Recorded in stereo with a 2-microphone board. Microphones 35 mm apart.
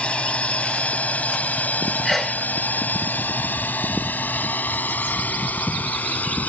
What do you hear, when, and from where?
0.0 s a drone: 35° left (ahead or behind); by 6.5 s 55° left (ahead or behind)
2.0 s a sneeze: 5° left (ahead or behind)